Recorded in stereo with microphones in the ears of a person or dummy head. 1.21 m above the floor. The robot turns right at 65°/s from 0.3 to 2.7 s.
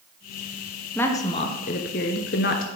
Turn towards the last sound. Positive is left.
turn(degrees=125)